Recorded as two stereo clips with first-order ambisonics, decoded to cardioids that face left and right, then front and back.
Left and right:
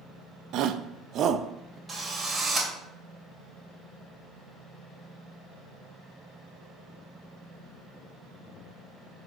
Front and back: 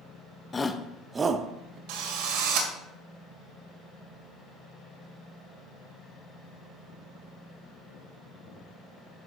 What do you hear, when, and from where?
0.5 s a shout: 70° right, 0.8 m; by 1.8 s 160° right, 0.8 m
1.9 s a drill: 175° right, 1.9 m